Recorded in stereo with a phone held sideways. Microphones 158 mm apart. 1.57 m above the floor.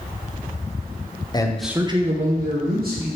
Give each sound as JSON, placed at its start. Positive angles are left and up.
{"t": 1.3, "sound": "a man speaking", "side_deg": 25, "distance_m": 0.5}